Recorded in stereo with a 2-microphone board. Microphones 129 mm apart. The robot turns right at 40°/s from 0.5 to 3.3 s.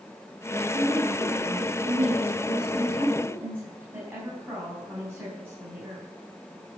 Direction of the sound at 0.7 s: 120° right.